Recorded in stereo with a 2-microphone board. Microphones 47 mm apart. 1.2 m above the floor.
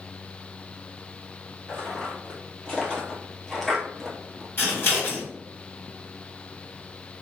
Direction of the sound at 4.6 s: 50° left (ahead or behind).